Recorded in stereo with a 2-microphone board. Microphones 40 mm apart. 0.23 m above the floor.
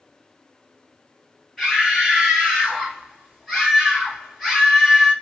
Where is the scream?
5° left (ahead or behind), 2.5 m.